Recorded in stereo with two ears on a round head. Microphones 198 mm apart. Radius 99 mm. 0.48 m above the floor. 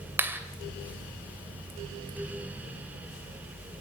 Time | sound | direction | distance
0.2 | a clap | 10° right (ahead or behind) | 2 m